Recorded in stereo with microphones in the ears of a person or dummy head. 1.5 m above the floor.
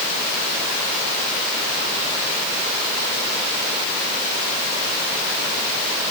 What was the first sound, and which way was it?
Only background noise.